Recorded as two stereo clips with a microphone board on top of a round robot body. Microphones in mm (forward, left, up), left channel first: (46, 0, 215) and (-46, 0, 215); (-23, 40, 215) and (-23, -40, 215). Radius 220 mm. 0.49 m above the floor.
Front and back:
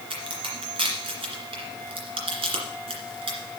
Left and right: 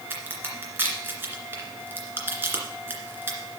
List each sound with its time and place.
0.1 s a crack: 155° right, 2 m